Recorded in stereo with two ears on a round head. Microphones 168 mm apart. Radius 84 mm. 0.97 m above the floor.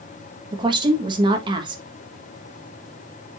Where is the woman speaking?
25° right (ahead or behind), 1.4 m.